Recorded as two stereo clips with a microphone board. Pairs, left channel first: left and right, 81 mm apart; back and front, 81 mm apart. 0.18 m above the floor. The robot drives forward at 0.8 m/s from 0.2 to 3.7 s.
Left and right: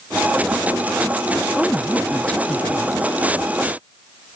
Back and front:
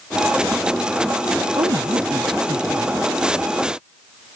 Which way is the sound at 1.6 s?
10° left.